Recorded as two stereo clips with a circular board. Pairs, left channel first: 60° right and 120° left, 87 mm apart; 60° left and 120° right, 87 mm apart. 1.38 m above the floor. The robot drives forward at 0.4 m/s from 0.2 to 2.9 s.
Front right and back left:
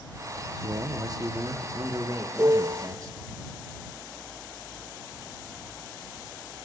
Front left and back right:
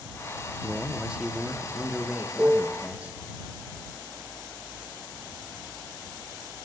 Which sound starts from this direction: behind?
A piano, at 2.4 s.